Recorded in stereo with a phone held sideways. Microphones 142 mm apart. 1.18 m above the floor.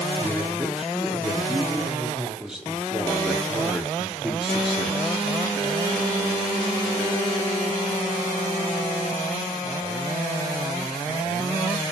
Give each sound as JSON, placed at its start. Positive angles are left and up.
{"t": 0.2, "sound": "a man speaking", "side_deg": -5, "distance_m": 3.0}